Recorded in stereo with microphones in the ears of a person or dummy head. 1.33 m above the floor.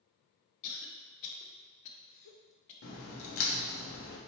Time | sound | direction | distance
0.6 | a cough | 70° left (ahead or behind) | 0.9 m
2.8 | a crack | 65° left (ahead or behind) | 1.1 m